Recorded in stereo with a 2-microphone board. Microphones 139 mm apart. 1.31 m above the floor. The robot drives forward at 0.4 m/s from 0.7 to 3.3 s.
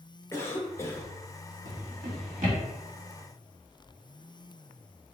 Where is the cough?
20° left (ahead or behind), 0.9 m; by 1.1 s 15° left (ahead or behind), 1.0 m.